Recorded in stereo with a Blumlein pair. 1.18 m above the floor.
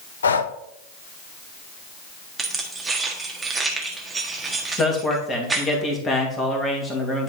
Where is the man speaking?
15° left, 2 m.